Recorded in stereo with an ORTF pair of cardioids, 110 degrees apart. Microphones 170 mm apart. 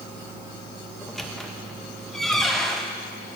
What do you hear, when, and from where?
1.0 s a squeak: straight ahead, 0.6 m